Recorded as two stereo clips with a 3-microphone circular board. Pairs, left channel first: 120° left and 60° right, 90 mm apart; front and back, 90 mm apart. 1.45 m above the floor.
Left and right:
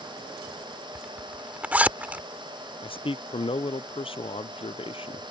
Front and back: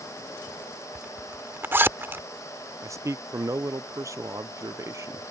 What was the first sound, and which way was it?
A zipper, 125° right.